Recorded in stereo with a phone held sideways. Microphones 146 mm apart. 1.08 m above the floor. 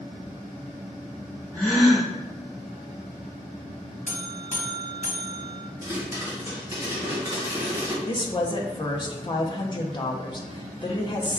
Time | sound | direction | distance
1.5 | a gasp | 5° left (ahead or behind) | 1.9 m
4.1 | a buzzer | 60° left (ahead or behind) | 1.0 m
5.8 | a pop | 15° right (ahead or behind) | 1.9 m
8.1 | a woman speaking | 30° left (ahead or behind) | 0.6 m